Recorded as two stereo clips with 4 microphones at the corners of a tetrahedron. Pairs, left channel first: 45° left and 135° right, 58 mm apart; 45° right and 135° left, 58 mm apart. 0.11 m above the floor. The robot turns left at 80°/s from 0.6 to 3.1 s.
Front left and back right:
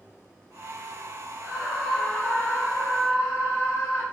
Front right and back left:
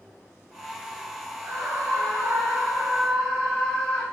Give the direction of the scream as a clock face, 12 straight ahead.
6 o'clock.